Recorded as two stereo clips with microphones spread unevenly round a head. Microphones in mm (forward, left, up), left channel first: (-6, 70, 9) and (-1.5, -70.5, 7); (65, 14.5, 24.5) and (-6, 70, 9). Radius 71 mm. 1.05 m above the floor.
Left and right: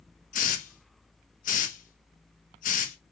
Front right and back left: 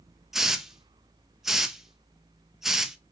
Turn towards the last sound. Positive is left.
turn(degrees=60)